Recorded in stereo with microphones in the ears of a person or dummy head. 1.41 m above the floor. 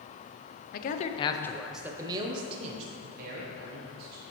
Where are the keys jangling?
I don't hear keys jangling.